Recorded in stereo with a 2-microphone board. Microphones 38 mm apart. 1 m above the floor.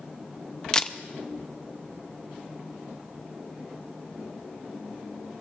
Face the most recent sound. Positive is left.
turn(degrees=20)  # may be behind; listen again after turning